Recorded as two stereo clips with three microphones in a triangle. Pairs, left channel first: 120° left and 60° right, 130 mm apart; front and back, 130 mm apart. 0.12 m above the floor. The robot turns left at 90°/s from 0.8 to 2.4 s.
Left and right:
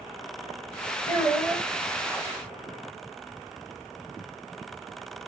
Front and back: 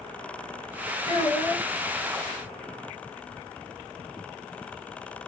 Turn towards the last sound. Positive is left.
turn(degrees=-70)